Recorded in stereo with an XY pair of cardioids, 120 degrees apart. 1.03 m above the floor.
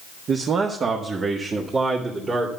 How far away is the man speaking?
About 1.3 m.